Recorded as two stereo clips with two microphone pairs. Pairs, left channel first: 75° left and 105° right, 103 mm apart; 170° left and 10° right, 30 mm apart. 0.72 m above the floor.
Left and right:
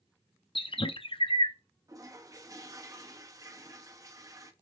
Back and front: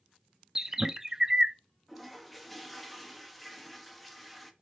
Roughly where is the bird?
Ahead left.